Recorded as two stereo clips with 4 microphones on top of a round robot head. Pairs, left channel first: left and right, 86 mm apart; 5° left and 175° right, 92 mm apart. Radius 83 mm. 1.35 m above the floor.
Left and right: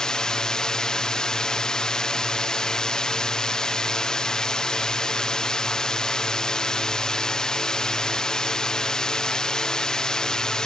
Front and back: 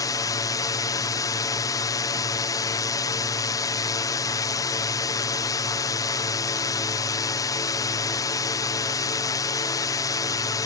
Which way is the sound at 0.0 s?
15° left.